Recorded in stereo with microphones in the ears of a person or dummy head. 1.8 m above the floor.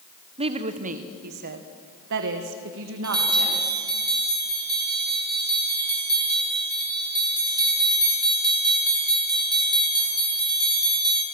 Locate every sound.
0.4 s a woman speaking: 30° right (ahead or behind), 1.4 m; by 3.8 s 75° right (ahead or behind), 3 m
3.0 s a bell: 25° right (ahead or behind), 3.5 m